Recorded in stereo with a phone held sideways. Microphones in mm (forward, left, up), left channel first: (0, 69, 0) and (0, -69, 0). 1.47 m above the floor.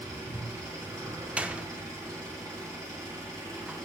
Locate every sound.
0.0 s an engine running: 25° right (ahead or behind), 3 m
1.4 s a door slam: 10° right (ahead or behind), 0.5 m